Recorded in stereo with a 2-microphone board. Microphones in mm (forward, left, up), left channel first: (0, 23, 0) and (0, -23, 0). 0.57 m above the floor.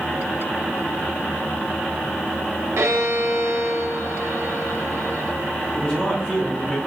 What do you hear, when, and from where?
2.8 s a violin: 70° right (ahead or behind), 0.5 m
5.8 s a man speaking: 20° left (ahead or behind), 0.6 m